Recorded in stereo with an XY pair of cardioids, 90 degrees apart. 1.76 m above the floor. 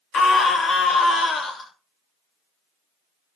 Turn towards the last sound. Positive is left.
turn(degrees=60)